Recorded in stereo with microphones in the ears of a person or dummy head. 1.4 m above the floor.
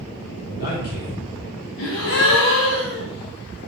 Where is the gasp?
70° left (ahead or behind), 1.0 m.